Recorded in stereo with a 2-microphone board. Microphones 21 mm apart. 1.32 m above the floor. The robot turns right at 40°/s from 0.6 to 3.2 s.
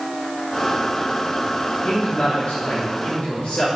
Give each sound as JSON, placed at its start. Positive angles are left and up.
{"t": 1.8, "sound": "a man speaking", "azimuth_deg": 55, "distance_m": 6.0}